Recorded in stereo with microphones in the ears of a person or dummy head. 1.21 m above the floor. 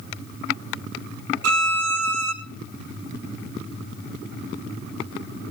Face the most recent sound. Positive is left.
turn(degrees=-80)